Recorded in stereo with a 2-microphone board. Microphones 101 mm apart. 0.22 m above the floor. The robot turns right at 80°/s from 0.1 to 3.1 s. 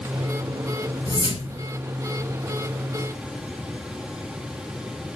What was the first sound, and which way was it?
A whoosh, 40° left.